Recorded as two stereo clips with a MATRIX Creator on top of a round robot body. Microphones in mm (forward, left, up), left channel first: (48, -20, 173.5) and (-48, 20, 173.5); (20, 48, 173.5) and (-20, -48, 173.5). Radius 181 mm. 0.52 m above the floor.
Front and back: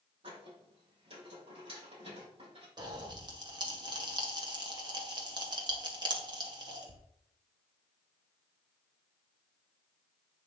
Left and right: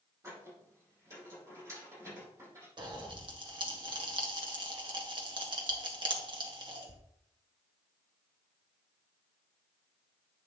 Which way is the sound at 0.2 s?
175° right.